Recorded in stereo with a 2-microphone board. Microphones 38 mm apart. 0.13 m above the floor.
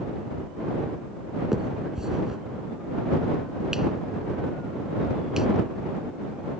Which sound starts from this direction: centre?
A finger snap, at 1.5 s.